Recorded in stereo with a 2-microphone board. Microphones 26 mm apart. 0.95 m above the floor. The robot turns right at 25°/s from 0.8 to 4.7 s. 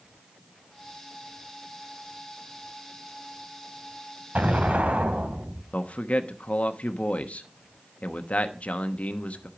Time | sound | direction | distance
4.3 | an explosion | 75° right (ahead or behind) | 2 m
5.7 | a man speaking | 65° left (ahead or behind) | 1.0 m